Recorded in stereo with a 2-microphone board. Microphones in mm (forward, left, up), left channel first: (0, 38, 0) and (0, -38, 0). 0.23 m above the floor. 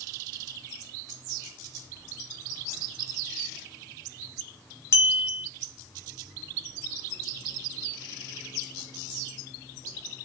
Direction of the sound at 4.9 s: 35° left (ahead or behind).